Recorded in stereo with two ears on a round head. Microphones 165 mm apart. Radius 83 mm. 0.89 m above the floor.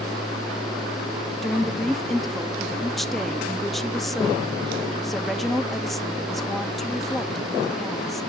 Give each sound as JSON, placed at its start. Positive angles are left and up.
{"t": 1.4, "sound": "a woman speaking", "side_deg": 0, "distance_m": 1.1}